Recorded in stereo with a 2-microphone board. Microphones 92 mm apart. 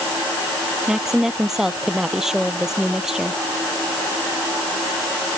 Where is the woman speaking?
5° right (ahead or behind).